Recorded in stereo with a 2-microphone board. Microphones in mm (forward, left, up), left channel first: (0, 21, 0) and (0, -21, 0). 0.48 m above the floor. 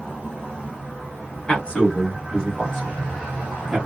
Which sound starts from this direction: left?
A man speaking, at 1.5 s.